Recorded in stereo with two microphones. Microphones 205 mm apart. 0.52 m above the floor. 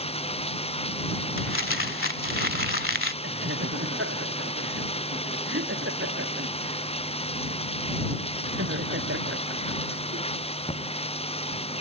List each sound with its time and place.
0.0 s running water: 30° left (ahead or behind)
1.4 s crumpling: 85° left
3.2 s laughter: 85° right